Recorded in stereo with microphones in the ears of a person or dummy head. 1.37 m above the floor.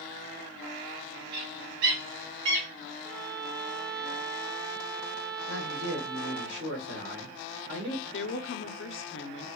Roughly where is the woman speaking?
Left.